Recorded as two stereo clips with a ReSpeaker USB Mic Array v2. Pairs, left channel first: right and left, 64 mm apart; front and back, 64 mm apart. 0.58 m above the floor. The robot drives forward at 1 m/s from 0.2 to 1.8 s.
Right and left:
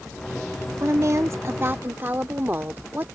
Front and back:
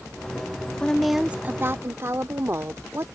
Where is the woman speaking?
65° left; by 3.1 s 140° left.